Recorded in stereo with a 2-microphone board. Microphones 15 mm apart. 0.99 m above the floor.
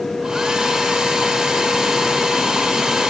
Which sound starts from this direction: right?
A hair dryer, at 0.2 s.